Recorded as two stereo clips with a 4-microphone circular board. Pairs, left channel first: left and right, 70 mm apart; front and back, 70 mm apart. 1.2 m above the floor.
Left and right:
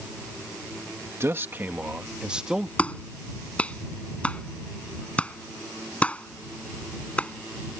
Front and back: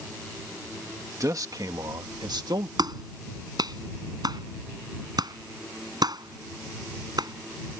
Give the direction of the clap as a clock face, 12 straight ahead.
7 o'clock.